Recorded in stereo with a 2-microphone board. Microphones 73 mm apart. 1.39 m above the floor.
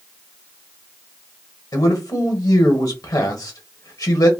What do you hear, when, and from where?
1.7 s a man speaking: 55° left (ahead or behind), 1.1 m